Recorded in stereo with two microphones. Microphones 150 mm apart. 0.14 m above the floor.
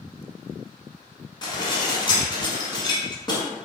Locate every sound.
1.4 s dishes clattering: 30° left (ahead or behind), 0.9 m